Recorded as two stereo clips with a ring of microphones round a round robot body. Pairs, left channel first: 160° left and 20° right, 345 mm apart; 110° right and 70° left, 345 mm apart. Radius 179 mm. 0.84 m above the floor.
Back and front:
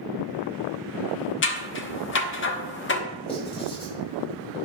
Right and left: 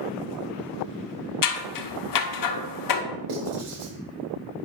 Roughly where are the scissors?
Behind right.